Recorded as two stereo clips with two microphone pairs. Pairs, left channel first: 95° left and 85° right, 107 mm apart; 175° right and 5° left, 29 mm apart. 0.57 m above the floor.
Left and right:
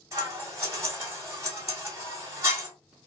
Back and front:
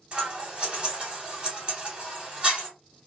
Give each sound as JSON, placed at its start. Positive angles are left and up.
{"t": 0.1, "sound": "scissors", "azimuth_deg": -35, "distance_m": 1.4}